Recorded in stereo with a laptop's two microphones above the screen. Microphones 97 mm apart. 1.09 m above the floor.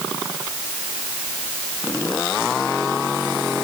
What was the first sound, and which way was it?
Only background noise.